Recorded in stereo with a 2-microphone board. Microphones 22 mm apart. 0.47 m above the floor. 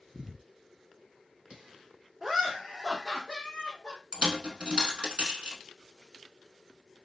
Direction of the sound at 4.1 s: 55° right (ahead or behind).